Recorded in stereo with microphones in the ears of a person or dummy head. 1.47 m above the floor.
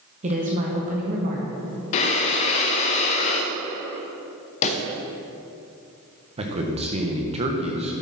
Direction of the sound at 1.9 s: 35° left (ahead or behind).